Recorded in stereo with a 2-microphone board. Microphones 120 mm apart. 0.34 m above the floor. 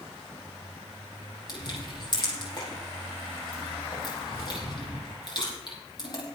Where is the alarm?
No alarm in this recording.